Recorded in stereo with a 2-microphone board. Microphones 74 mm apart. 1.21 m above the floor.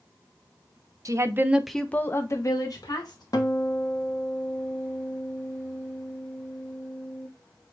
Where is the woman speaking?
45° right (ahead or behind), 0.8 m; by 3.2 s 65° left (ahead or behind), 1.6 m.